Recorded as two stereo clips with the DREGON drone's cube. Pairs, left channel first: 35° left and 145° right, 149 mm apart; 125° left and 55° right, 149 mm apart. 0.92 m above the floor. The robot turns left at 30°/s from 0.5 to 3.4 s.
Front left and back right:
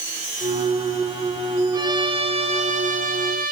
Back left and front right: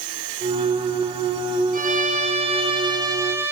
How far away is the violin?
About 2.5 m.